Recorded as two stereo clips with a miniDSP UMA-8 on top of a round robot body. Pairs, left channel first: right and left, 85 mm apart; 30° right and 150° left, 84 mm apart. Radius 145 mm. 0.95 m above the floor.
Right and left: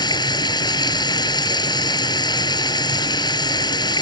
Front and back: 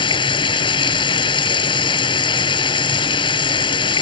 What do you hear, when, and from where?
0.0 s running water: 55° right